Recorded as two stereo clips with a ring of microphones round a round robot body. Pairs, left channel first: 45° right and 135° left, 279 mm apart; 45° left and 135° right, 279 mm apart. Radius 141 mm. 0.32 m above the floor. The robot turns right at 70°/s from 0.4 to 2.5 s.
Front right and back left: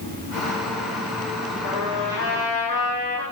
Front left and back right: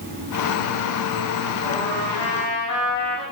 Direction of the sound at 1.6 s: 35° right.